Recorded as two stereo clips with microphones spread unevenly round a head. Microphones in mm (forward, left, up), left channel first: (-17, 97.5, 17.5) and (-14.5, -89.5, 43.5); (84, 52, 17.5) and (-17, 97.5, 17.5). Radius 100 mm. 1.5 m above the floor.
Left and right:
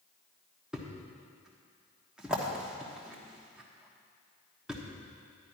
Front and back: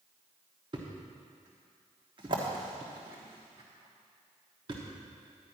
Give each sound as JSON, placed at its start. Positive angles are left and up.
{"t": 0.7, "sound": "a thud", "azimuth_deg": -165, "distance_m": 1.2}